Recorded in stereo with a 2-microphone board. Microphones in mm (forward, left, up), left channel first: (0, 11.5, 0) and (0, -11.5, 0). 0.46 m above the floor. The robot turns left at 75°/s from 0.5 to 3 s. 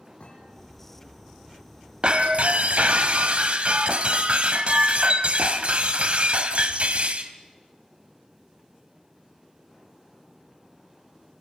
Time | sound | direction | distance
0.2 | a thud | 60° left (ahead or behind) | 6.5 m
2.0 | breaking glass | 45° right | 1.6 m